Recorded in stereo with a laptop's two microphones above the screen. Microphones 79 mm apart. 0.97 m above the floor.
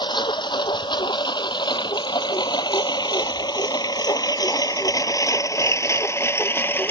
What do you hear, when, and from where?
0.0 s a lawn mower: 85° left; by 6.9 s 25° left (ahead or behind)